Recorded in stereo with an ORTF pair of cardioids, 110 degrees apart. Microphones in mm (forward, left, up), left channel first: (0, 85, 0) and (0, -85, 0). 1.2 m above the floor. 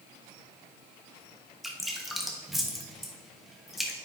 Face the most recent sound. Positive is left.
turn(degrees=0)